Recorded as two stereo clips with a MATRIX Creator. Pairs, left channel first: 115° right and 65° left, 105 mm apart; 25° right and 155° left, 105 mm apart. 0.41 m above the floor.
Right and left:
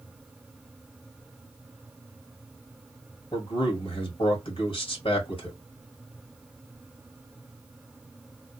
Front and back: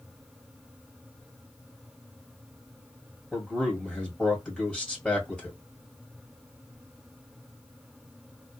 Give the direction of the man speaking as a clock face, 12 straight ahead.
4 o'clock.